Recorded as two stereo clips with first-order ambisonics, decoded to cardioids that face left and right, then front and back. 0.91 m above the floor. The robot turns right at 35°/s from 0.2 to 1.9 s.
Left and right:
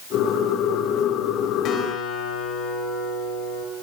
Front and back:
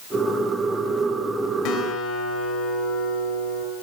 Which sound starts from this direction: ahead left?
A guitar, at 1.6 s.